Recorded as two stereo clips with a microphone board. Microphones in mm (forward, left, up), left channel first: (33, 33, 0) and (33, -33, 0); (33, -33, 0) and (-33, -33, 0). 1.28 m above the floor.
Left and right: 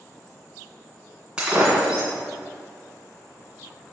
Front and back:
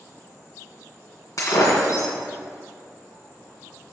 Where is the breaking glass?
15° right, 2.5 m.